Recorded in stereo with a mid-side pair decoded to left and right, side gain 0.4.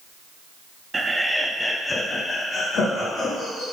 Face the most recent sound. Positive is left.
turn(degrees=70)